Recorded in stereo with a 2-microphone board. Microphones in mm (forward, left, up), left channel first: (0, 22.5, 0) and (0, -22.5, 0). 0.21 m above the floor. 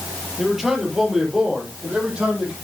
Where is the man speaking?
Centre (ahead or behind), 4.5 m; by 2.5 s 25° right (ahead or behind), 7 m.